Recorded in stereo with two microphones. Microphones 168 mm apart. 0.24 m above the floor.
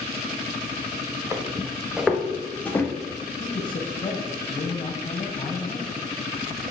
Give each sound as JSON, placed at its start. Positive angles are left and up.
{"t": 1.3, "sound": "footsteps", "side_deg": -15, "distance_m": 1.8}
{"t": 3.4, "sound": "a man speaking", "side_deg": 35, "distance_m": 1.7}